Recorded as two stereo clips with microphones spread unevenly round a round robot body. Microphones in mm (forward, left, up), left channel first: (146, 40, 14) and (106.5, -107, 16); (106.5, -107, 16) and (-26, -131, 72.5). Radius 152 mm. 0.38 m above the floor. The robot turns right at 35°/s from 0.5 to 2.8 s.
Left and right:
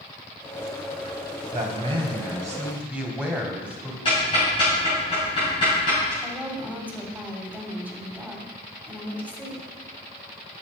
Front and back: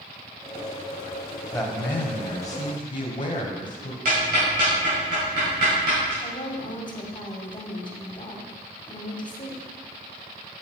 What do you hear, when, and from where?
1.5 s a man speaking: 65° right, 2.5 m; by 4.0 s 20° right, 2.5 m
4.0 s ticking: 140° left, 3 m
6.2 s a woman speaking: 25° right, 2 m